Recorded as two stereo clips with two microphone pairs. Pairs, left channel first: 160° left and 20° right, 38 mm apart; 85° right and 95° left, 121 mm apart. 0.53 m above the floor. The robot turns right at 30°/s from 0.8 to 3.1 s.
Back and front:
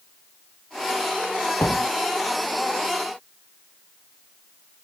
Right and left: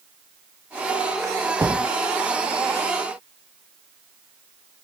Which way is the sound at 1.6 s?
160° left.